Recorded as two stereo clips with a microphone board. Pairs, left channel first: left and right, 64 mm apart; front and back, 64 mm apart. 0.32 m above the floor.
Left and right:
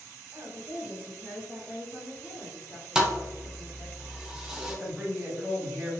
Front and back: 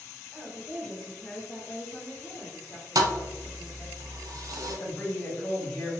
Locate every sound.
0.3 s a woman speaking: 75° right, 1.2 m; by 4.0 s 45° left, 1.7 m
3.0 s a thud: 170° right, 0.5 m
4.7 s a man speaking: 10° left, 1.7 m